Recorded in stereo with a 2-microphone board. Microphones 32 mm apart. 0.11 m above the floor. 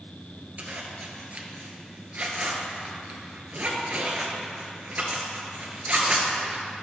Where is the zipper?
50° right (ahead or behind), 1.3 m.